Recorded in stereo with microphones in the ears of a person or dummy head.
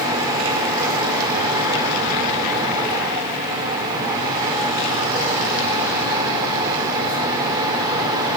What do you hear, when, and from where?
0.0 s a fan: 20° right (ahead or behind), 2.0 m